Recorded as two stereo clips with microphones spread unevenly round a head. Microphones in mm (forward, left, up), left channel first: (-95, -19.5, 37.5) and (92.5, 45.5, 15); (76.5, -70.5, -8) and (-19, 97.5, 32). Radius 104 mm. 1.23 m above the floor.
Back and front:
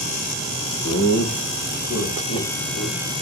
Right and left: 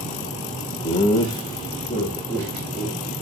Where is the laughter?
115° right, 1.1 m; by 3.0 s 140° right, 4 m.